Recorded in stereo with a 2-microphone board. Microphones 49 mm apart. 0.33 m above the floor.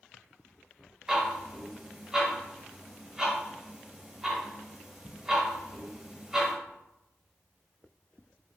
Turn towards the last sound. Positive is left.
turn(degrees=-15)  # may be behind; listen again after turning